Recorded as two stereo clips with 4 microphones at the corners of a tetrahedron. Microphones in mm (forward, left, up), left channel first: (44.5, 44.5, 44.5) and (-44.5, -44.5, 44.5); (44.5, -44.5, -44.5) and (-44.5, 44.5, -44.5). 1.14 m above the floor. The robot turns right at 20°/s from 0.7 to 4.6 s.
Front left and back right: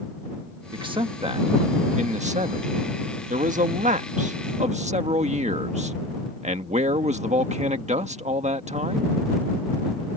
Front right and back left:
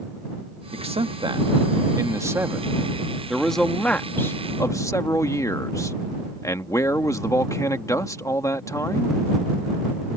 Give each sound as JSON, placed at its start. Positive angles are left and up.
{"t": 0.7, "sound": "a man speaking", "azimuth_deg": 175}